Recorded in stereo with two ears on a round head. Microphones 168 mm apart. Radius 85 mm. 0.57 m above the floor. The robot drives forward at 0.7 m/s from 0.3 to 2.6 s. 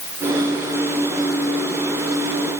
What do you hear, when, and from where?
Only background noise.